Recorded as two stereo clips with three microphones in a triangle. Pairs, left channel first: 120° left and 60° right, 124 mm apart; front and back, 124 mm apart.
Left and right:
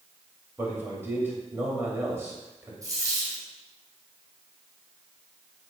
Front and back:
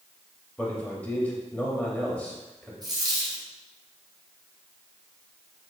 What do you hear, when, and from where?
0.6 s a man speaking: 50° right, 0.9 m
2.8 s a dropped coin: 125° right, 1.8 m